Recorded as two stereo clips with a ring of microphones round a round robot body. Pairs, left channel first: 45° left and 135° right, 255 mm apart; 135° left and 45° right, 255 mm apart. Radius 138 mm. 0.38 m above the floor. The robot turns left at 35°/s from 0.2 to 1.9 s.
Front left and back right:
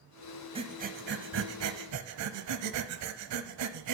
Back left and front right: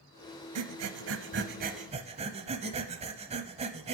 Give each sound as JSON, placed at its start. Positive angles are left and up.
{"t": 0.6, "sound": "breathing", "azimuth_deg": -65, "distance_m": 0.7}